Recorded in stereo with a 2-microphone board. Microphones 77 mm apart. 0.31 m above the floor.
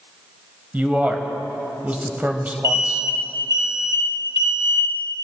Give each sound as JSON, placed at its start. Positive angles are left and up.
{"t": 0.7, "sound": "a man speaking", "side_deg": -20, "distance_m": 1.1}
{"t": 2.6, "sound": "an alarm", "side_deg": -40, "distance_m": 1.7}